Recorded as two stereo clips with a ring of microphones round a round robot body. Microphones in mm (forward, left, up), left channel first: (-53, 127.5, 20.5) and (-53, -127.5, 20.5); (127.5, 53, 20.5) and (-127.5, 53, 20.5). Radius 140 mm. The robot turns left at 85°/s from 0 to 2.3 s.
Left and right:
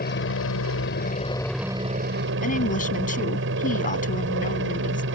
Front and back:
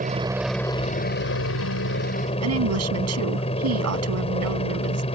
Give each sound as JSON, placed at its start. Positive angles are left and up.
{"t": 0.0, "sound": "a helicopter", "azimuth_deg": 130}
{"t": 2.4, "sound": "a woman speaking", "azimuth_deg": 150}